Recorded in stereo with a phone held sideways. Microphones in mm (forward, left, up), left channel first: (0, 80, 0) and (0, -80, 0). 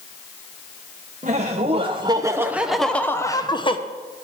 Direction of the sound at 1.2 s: 50° right (ahead or behind).